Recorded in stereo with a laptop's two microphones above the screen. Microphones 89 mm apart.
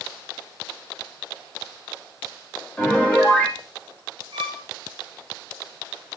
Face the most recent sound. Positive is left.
turn(degrees=-65)  # may be behind; listen again after turning